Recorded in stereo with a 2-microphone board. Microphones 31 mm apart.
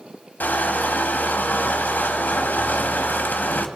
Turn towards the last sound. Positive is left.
turn(degrees=85)